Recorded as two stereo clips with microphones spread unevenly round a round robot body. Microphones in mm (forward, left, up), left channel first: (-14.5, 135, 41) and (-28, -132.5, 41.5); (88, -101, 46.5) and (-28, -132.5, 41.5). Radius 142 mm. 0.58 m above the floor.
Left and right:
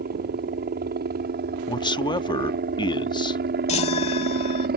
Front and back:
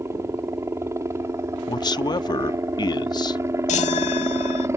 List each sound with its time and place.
0.0 s a helicopter: 115° right
1.7 s a man speaking: 30° left
3.7 s a chime: 20° left